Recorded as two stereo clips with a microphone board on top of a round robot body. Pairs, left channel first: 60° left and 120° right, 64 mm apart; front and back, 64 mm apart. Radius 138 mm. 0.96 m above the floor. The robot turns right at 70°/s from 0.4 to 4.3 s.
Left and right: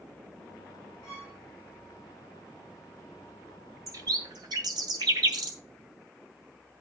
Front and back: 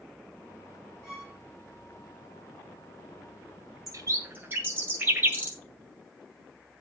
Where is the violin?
90° left, 1.5 m; by 1.4 s 115° left, 1.5 m.